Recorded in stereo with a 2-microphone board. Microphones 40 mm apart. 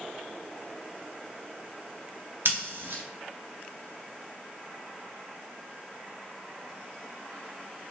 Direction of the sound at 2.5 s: 70° right (ahead or behind).